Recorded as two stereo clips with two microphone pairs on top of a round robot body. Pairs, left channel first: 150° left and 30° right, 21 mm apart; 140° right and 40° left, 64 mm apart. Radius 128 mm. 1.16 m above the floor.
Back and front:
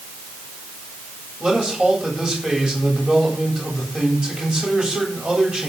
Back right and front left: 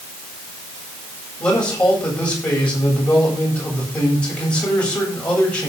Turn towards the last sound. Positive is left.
turn(degrees=-70)